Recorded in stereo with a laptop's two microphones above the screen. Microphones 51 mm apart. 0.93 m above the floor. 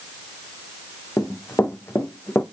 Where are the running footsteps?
60° left (ahead or behind), 1.8 m; by 2.4 s 45° left (ahead or behind), 1.6 m.